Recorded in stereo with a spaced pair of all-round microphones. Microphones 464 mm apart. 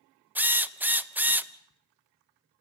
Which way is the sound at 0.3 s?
5° right (ahead or behind).